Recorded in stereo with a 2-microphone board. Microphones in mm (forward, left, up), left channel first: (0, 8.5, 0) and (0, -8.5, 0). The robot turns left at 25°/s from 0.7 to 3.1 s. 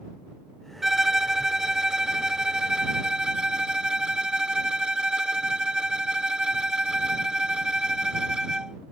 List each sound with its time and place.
0.8 s a violin: 25° right; by 8.8 s 80° right